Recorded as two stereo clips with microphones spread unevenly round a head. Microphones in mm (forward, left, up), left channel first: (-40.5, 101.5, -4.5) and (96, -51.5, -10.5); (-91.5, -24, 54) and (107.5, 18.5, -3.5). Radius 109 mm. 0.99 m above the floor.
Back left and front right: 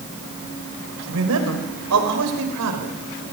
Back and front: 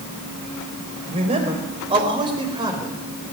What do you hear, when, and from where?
1.1 s a man speaking: 50° right, 5 m; by 3.0 s 60° right, 4.5 m